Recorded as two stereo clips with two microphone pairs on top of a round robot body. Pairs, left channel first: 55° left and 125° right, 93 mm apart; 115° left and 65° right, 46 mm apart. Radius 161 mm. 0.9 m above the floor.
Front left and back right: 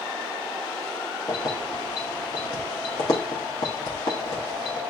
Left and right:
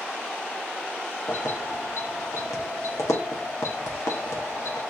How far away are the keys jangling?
About 0.8 m.